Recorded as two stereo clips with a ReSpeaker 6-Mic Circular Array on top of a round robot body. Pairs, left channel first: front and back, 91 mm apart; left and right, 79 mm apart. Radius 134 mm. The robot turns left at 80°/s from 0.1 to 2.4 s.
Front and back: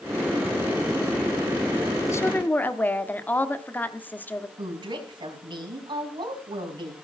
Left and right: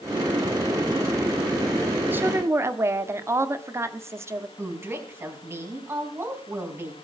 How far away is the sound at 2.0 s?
About 1.4 m.